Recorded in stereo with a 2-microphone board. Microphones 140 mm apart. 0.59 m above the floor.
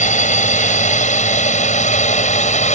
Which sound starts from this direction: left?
A drone, at 0.0 s.